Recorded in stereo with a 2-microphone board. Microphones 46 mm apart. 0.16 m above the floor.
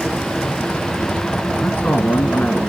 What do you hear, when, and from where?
1.6 s a man speaking: 40° left (ahead or behind), 1.6 m